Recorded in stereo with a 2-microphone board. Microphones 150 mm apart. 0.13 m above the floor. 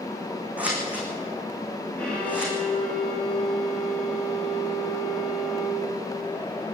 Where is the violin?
5° left (ahead or behind), 9.5 m.